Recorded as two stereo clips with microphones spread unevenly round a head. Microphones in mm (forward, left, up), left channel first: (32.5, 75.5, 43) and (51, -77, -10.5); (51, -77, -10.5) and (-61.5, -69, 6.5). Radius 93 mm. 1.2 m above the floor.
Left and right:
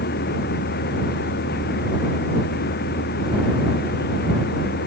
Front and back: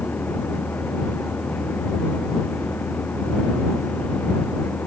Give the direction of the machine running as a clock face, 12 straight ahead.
9 o'clock.